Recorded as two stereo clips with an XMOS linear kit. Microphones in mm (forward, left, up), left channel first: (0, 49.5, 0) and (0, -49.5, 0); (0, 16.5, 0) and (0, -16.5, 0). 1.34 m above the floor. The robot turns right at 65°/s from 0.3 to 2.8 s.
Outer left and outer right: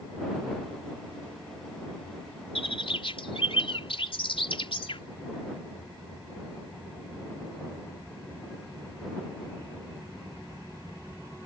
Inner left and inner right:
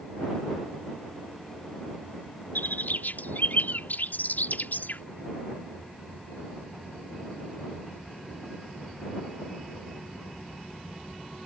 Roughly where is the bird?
Left.